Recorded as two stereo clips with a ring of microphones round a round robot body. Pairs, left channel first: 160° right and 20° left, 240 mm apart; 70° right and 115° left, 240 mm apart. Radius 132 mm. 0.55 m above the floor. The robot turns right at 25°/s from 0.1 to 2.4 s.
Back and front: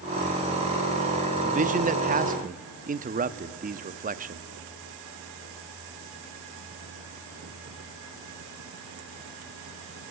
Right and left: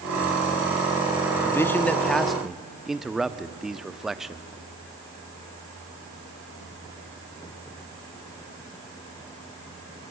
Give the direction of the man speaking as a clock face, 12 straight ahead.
12 o'clock.